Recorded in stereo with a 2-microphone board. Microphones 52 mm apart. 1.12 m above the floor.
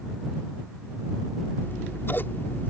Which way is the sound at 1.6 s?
40° left (ahead or behind).